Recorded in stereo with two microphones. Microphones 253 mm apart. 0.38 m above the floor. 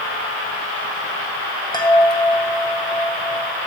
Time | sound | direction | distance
1.7 | a chime | 15° left (ahead or behind) | 1.7 m